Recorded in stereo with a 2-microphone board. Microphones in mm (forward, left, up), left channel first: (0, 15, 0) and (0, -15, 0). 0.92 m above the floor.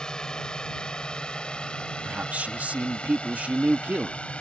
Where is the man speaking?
60° right (ahead or behind).